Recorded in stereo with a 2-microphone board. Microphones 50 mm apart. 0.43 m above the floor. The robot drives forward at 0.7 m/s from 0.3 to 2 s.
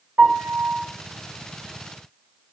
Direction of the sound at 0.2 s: 45° right (ahead or behind).